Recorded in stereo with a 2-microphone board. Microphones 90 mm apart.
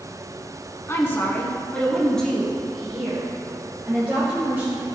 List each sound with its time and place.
0.9 s a woman speaking: 30° left (ahead or behind), 1.6 m; by 4.8 s 15° right (ahead or behind), 3.5 m